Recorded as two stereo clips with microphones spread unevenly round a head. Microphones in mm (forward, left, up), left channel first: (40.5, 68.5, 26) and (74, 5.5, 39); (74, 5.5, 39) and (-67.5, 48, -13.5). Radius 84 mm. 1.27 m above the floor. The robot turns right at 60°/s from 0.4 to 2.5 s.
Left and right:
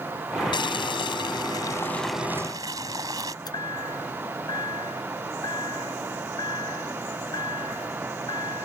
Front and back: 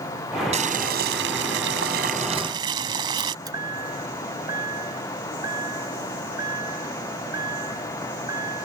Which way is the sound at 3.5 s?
95° left.